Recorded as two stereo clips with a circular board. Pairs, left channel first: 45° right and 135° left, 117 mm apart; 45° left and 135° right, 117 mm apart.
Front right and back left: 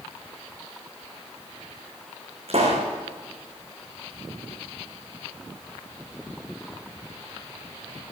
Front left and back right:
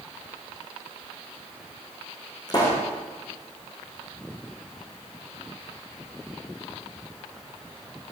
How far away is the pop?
About 8.5 m.